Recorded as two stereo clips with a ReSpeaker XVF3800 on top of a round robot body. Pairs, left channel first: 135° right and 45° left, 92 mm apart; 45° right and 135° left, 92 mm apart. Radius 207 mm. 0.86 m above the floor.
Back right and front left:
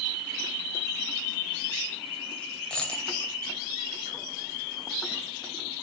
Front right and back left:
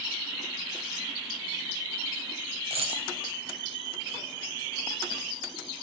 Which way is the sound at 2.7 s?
145° left.